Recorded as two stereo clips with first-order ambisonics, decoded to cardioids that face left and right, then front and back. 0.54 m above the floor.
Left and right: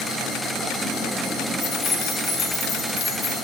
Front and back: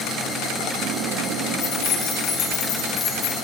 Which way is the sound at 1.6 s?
30° left.